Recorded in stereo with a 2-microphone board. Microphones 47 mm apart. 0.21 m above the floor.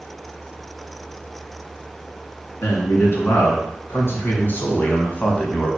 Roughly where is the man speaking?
Left.